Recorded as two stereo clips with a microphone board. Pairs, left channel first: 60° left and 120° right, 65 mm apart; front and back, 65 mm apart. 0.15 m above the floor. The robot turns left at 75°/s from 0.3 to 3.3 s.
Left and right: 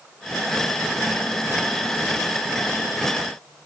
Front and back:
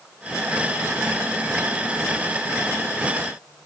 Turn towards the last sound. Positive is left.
No sound to turn to.